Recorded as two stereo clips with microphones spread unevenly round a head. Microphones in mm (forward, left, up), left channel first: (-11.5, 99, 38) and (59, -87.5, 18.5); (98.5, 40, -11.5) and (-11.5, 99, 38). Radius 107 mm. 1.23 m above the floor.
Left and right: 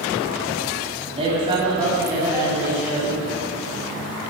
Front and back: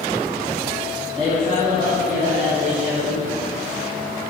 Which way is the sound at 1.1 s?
135° right.